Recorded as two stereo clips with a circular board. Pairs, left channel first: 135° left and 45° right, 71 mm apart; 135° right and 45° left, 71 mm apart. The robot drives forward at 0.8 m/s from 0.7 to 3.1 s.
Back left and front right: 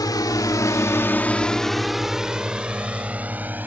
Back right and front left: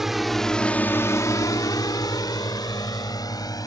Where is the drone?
130° left; by 3.7 s 110° right.